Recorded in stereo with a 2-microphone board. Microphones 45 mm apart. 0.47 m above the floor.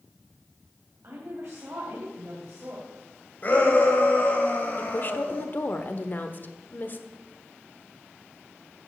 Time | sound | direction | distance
1.0 | a woman speaking | 65° right (ahead or behind) | 2.5 m
3.4 | a shout | 40° left (ahead or behind) | 2.5 m
4.8 | a woman speaking | 40° left (ahead or behind) | 1.0 m